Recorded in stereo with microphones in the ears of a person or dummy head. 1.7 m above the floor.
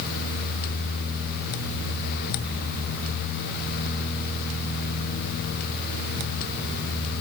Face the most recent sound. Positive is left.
No sound to turn to.